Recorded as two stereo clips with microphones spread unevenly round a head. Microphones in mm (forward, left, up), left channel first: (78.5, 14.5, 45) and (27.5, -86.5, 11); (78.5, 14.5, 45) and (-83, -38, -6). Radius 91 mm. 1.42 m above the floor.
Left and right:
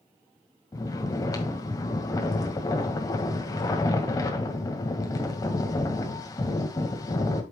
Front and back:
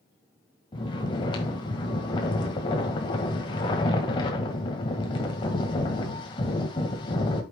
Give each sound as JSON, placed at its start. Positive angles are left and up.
{"t": 0.7, "sound": "snoring", "azimuth_deg": 45, "distance_m": 1.6}